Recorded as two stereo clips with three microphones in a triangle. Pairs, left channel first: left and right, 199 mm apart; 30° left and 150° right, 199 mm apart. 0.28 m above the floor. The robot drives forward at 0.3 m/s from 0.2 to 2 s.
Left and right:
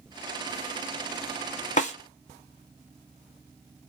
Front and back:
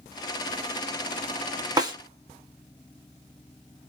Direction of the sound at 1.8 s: 140° left.